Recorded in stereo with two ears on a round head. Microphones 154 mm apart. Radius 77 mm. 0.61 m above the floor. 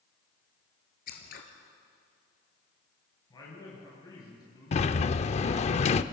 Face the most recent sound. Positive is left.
turn(degrees=35)  # may be behind; listen again after turning